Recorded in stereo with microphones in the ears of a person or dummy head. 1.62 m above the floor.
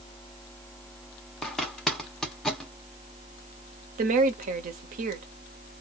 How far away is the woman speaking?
About 1.0 m.